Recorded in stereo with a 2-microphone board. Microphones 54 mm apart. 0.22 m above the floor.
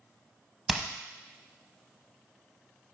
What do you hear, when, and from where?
0.7 s hammering: 5° right (ahead or behind), 0.6 m